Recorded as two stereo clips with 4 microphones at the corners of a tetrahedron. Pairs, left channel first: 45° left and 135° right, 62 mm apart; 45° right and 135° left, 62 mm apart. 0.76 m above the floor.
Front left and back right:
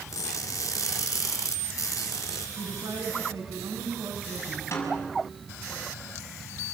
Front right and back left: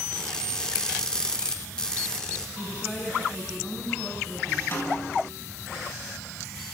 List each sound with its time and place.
0.1 s crushing: 30° left, 2.5 m
2.6 s a woman speaking: 125° right, 6 m
4.7 s a snare drum: straight ahead, 6.5 m